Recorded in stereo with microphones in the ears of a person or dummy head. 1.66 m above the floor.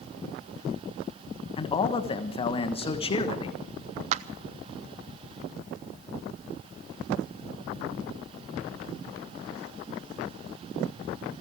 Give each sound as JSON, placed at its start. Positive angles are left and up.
{"t": 1.6, "sound": "a man speaking", "side_deg": 30, "distance_m": 1.3}
{"t": 4.1, "sound": "a clap", "side_deg": -40, "distance_m": 0.7}